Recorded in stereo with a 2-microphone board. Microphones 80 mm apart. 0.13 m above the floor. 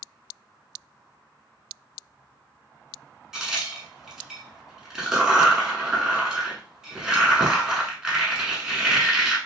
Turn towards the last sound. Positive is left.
turn(degrees=-10)  # may be behind; listen again after turning